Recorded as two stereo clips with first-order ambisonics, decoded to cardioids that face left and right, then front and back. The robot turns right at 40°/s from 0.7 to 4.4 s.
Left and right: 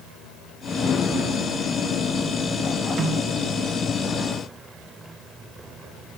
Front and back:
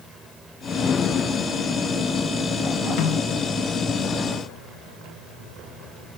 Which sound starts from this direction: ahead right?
A snare drum, at 3.0 s.